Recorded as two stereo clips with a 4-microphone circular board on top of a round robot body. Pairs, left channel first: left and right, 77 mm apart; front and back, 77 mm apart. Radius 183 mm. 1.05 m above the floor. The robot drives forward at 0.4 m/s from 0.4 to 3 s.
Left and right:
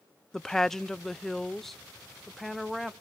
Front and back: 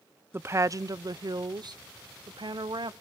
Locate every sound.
0.3 s a woman speaking: 165° left, 0.5 m; by 2.9 s straight behind, 1.3 m